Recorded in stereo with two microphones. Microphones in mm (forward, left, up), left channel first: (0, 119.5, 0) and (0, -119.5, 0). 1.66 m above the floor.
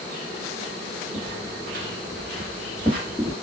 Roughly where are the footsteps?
Centre.